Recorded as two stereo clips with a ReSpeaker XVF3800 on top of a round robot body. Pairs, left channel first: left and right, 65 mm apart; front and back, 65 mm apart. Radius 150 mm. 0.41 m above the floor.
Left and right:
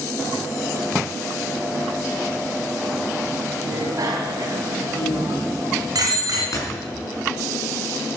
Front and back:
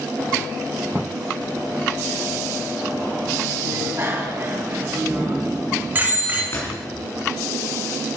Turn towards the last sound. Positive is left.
turn(degrees=50)